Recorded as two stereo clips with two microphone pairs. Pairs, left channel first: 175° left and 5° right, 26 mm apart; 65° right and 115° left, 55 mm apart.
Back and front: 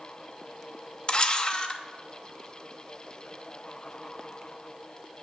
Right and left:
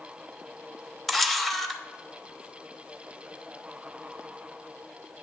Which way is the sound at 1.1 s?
155° right.